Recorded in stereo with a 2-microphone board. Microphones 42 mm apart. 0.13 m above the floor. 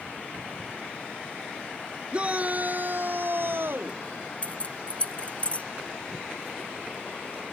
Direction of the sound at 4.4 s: 35° left (ahead or behind).